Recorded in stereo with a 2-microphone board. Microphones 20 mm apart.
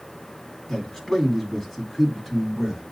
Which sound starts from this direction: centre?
A man speaking, at 0.7 s.